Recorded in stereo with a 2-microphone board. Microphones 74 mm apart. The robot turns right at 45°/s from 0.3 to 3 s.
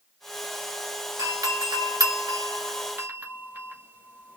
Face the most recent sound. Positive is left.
turn(degrees=-25)  # may be behind; listen again after turning